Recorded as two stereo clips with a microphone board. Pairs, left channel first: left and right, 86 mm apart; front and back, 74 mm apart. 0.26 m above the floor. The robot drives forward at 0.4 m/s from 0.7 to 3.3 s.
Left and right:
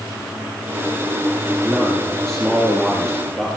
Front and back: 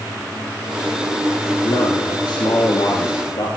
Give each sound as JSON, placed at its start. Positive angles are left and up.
{"t": 1.6, "sound": "a man speaking", "azimuth_deg": 5, "distance_m": 6.5}